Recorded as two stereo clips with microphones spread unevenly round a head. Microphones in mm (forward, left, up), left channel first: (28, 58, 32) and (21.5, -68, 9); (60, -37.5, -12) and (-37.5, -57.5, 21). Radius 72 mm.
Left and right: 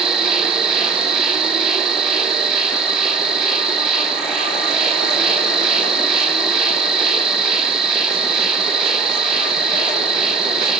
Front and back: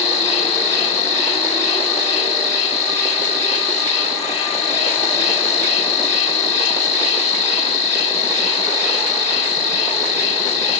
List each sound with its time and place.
0.0 s an insect: 5° right, 1.8 m